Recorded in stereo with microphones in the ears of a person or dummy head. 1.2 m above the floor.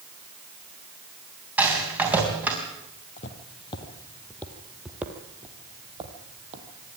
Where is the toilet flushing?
I don't hear a toilet flushing.